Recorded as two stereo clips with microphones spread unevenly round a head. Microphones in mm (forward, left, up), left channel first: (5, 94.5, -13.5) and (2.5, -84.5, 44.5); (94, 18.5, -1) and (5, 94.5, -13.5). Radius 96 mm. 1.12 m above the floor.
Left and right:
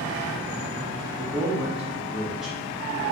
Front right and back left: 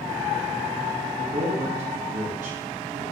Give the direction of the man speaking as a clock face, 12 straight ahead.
6 o'clock.